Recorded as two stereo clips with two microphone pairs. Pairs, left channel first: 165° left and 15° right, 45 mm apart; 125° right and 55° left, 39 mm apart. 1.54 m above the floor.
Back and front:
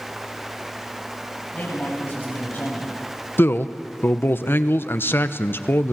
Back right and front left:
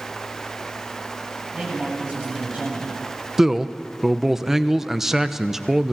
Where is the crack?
I don't hear a crack.